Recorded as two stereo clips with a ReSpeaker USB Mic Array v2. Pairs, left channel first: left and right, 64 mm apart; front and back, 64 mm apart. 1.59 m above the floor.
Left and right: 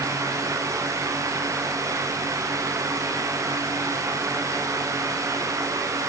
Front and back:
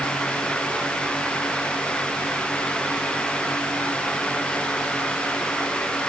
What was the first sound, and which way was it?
Only background noise.